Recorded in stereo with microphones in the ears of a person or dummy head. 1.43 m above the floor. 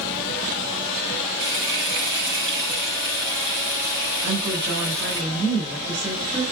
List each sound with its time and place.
1.4 s frying: 55° right (ahead or behind), 3.5 m
4.2 s a woman speaking: 15° right (ahead or behind), 5 m